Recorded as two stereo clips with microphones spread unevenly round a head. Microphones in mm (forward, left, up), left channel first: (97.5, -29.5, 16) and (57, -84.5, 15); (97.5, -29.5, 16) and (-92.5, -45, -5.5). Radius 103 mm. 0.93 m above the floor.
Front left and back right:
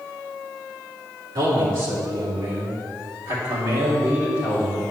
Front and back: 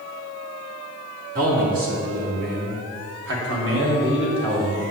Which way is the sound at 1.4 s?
135° right.